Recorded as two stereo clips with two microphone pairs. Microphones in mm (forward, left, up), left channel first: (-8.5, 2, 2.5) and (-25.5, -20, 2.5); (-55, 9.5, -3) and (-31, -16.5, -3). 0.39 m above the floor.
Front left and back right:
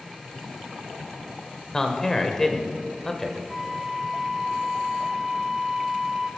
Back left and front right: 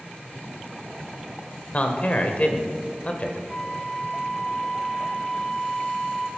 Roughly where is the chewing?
No chewing in this recording.